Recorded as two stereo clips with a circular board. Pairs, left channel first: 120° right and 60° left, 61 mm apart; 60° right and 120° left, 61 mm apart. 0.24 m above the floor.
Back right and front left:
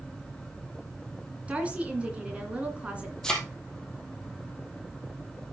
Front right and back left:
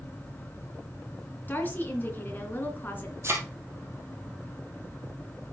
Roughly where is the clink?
No clink in this recording.